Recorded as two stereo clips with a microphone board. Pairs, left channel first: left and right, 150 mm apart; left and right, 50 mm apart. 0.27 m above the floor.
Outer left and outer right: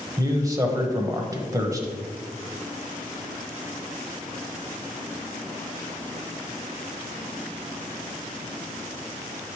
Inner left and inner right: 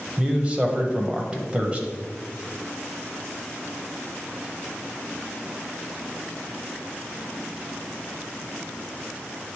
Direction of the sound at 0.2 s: 25° right (ahead or behind).